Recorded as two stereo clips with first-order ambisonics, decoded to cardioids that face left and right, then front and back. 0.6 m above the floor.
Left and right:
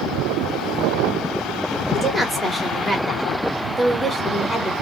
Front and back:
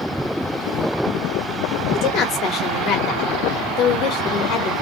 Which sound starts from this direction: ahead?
A woman speaking, at 1.9 s.